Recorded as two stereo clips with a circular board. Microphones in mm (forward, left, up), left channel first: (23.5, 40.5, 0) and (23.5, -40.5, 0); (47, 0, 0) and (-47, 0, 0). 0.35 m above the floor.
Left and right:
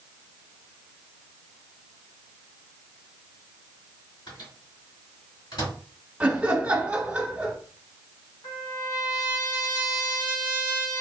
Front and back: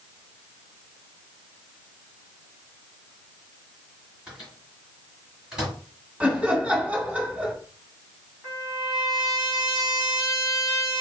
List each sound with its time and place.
4.3 s a microwave: 100° left, 2.0 m
6.2 s laughter: 135° right, 1.2 m
8.4 s a trumpet: 100° left, 2 m